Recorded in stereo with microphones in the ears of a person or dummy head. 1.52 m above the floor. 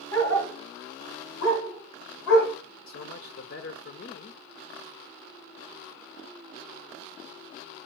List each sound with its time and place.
0.1 s a dog barking: 15° left (ahead or behind), 4.5 m
2.9 s a man speaking: 55° left (ahead or behind), 0.7 m